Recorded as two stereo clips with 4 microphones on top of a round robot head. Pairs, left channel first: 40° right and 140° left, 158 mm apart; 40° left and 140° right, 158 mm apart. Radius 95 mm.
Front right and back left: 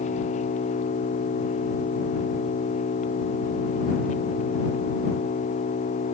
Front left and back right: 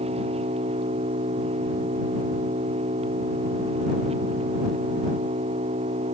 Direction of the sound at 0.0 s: 85° right.